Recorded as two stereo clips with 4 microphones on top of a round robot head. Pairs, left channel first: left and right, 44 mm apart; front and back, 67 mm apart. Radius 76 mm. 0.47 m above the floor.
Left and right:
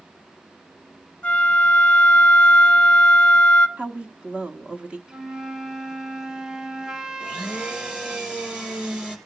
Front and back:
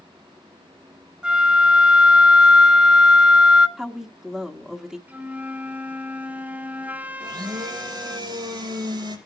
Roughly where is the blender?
Behind.